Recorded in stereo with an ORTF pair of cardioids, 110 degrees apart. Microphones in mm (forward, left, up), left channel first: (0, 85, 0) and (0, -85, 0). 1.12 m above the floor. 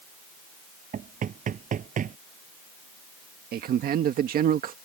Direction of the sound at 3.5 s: 60° right.